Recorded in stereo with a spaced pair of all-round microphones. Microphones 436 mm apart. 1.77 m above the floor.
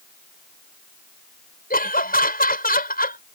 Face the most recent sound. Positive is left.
turn(degrees=20)  # may be behind; listen again after turning